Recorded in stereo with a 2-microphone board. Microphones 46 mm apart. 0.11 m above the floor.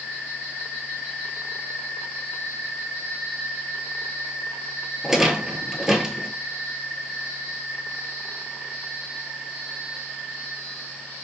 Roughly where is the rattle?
Centre.